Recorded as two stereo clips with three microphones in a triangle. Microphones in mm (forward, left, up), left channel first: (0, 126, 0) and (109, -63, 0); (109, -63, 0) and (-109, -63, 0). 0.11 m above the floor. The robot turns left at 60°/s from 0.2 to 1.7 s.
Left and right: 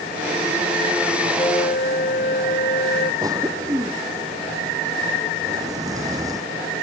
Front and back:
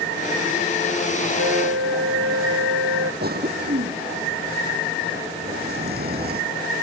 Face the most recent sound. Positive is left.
turn(degrees=-135)